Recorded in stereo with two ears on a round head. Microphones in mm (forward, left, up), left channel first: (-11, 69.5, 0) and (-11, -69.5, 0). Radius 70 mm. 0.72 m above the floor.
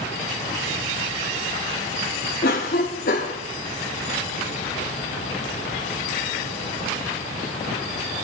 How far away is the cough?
About 2.0 m.